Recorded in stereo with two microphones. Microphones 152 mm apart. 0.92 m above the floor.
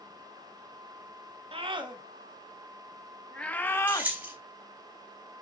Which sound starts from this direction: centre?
Keys jangling, at 3.9 s.